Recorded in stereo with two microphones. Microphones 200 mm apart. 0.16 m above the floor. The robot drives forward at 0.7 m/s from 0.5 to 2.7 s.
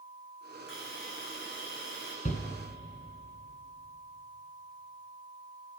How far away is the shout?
About 2 m.